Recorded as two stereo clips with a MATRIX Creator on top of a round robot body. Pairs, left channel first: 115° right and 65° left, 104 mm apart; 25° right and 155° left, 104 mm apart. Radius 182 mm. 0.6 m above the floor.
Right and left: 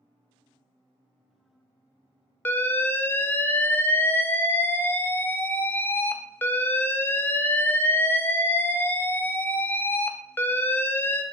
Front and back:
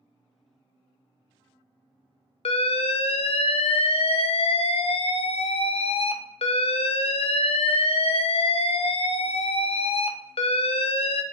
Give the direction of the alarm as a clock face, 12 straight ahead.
1 o'clock.